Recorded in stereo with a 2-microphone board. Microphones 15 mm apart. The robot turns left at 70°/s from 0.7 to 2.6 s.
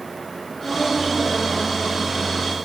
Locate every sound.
0.5 s a woman speaking: 70° left, 8 m; by 2.4 s 45° right, 8 m